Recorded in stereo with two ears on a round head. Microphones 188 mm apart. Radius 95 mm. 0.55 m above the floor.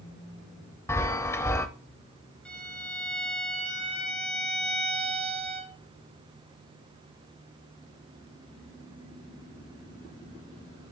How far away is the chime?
About 0.6 m.